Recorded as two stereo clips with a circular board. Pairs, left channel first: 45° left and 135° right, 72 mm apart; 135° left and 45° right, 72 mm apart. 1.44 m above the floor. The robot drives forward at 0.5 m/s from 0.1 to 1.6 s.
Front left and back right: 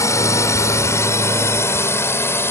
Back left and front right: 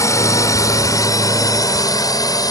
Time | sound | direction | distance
0.0 | a drone | 95° left | ?